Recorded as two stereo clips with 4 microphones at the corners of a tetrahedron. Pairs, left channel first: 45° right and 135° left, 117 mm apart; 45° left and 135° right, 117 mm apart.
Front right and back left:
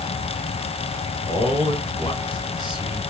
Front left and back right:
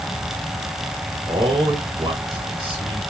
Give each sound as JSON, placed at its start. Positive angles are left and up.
{"t": 1.3, "sound": "a man speaking", "azimuth_deg": -90, "distance_m": 2.5}